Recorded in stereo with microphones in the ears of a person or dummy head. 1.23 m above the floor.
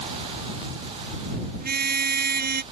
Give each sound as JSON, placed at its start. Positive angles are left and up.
{"t": 1.6, "sound": "a car horn", "side_deg": -50}